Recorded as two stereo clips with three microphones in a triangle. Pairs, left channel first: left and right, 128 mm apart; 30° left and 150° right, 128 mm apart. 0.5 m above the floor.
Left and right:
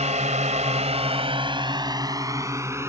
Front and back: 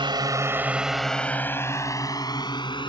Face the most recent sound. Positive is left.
turn(degrees=-20)